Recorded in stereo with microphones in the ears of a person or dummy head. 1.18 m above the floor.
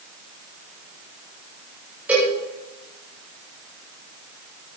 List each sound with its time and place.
2.1 s a cowbell: 10° right (ahead or behind), 7.5 m